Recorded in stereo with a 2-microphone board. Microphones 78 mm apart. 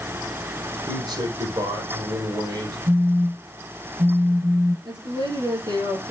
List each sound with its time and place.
0.9 s a man speaking: 55° right (ahead or behind), 4 m
2.9 s a phone buzzing: 65° right (ahead or behind), 4.5 m
4.8 s a woman speaking: 60° right (ahead or behind), 5 m